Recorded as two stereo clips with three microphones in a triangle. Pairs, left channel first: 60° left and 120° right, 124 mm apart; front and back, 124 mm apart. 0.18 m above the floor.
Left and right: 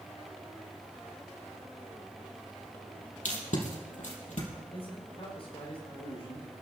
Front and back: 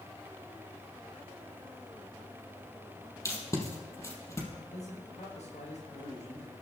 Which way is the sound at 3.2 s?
65° left.